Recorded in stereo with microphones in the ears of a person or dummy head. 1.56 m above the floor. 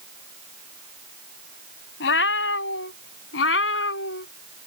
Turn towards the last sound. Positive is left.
turn(degrees=65)  # may be behind; listen again after turning